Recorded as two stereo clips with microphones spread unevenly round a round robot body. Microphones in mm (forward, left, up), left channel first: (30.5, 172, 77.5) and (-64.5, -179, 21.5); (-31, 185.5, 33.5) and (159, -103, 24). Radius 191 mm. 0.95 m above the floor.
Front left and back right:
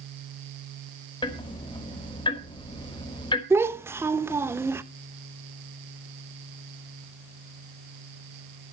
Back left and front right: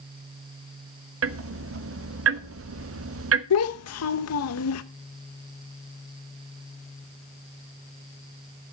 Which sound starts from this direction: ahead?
Ticking, at 1.2 s.